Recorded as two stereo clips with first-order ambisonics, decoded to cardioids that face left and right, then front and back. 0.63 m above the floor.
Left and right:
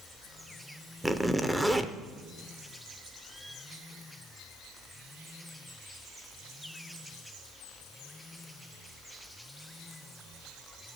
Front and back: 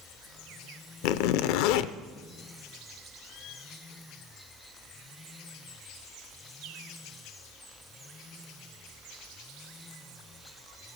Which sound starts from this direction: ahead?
A zipper, at 1.0 s.